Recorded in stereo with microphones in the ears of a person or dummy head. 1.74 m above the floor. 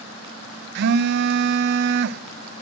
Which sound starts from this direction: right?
A phone buzzing, at 0.8 s.